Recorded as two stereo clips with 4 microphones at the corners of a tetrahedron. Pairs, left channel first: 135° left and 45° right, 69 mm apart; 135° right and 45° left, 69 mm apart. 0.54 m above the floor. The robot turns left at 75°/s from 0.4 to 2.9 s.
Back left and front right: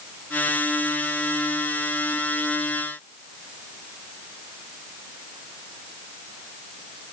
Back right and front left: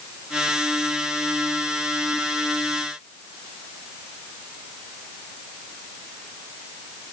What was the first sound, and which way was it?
Only background noise.